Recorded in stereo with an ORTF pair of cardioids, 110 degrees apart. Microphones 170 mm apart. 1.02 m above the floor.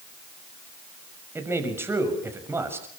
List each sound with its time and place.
1.4 s a man speaking: 15° right, 6.5 m